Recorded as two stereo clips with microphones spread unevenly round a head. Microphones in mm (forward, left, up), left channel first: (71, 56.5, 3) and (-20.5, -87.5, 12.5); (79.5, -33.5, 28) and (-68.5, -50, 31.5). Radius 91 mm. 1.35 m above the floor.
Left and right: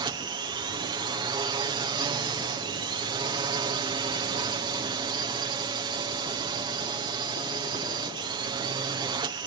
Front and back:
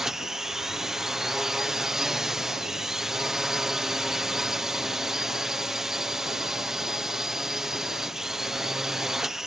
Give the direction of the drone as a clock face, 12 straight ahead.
3 o'clock.